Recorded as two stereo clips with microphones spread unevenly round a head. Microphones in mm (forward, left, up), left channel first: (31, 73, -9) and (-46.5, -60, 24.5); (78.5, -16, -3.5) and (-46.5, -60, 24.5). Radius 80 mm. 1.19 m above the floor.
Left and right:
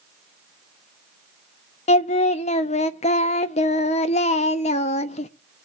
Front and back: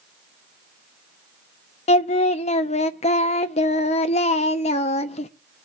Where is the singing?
25° left, 0.5 m.